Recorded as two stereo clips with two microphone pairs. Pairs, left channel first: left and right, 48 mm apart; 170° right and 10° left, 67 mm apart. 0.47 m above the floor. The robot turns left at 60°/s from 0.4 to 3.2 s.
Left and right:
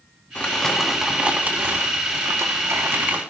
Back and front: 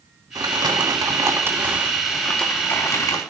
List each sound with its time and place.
0.3 s crumpling: 25° left, 3 m; by 3.2 s 140° right, 3 m